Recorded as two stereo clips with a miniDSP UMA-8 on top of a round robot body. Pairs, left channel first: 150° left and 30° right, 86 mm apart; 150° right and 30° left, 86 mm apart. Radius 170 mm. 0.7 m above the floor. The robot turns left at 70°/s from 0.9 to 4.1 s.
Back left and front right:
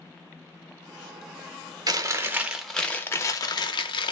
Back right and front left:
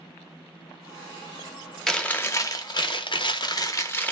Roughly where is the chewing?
Ahead right.